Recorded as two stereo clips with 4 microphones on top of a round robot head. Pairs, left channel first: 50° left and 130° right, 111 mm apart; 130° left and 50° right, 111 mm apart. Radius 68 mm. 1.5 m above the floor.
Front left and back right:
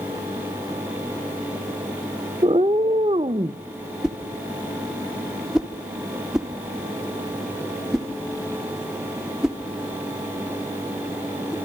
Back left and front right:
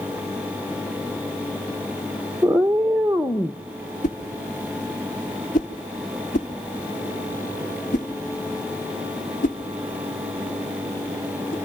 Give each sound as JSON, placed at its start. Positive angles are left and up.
{"t": 2.4, "sound": "a cat meowing", "azimuth_deg": -130, "distance_m": 0.7}
{"t": 4.0, "sound": "a whoosh", "azimuth_deg": 145, "distance_m": 1.7}